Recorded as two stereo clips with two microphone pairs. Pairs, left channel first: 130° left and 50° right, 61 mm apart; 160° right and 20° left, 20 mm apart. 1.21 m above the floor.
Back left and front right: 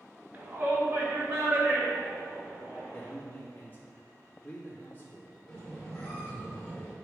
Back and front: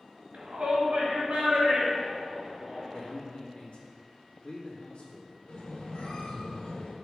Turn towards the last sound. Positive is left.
turn(degrees=-160)